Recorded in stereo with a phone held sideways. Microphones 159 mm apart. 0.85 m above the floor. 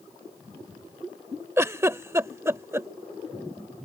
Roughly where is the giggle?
Centre.